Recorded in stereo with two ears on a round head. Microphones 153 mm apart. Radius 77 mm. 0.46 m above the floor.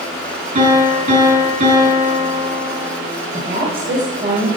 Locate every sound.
0.6 s a piano: 55° right (ahead or behind), 5 m
3.3 s a woman speaking: 40° right (ahead or behind), 2 m